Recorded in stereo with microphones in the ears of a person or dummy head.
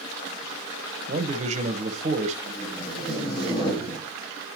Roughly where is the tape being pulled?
Left.